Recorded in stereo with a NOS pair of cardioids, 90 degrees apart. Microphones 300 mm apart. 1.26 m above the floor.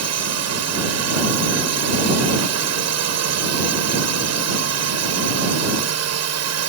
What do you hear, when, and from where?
0.0 s a drone: 60° right